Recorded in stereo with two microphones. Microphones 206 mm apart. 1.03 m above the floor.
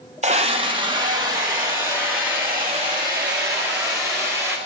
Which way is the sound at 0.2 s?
35° right (ahead or behind).